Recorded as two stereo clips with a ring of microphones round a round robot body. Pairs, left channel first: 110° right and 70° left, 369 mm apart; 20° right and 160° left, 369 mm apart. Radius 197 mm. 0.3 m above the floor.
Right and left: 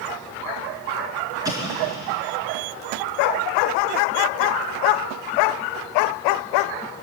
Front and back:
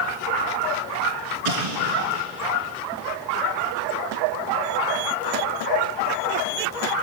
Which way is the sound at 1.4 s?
150° left.